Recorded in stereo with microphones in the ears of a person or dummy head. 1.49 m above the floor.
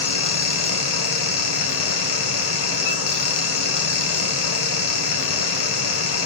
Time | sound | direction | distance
0.0 | a fan | 65° left (ahead or behind) | 1.2 m